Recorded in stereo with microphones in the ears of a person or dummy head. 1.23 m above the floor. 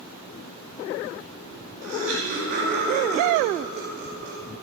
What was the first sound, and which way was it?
Laughter, 75° right (ahead or behind).